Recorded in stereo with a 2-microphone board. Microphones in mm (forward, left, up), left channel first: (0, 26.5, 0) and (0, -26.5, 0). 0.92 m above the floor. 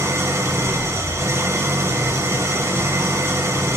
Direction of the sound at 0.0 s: 70° right (ahead or behind).